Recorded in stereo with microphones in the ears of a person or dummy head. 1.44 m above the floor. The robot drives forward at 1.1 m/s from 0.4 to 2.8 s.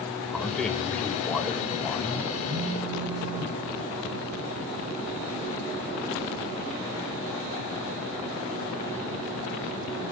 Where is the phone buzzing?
25° right (ahead or behind), 3.5 m; by 3.6 s 20° right (ahead or behind), 3.5 m.